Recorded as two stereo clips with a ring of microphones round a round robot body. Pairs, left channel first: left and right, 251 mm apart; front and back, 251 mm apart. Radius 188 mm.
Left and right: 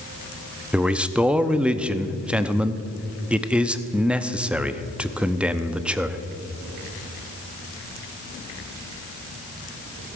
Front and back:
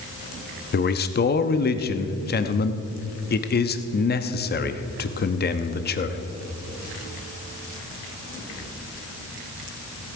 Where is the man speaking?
5° right, 0.7 m.